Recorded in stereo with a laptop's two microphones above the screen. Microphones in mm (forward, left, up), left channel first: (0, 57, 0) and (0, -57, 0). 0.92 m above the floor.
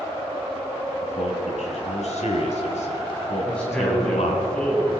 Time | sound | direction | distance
1.0 | a man speaking | 85° left | 5.5 m
3.5 | a man speaking | 10° left (ahead or behind) | 7 m